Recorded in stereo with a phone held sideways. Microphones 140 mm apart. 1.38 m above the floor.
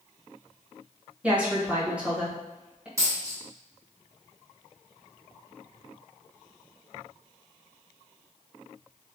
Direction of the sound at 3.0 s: 20° right (ahead or behind).